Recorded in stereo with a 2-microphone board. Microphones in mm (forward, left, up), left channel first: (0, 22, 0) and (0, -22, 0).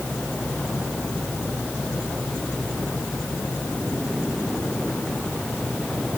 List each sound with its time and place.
Only background noise.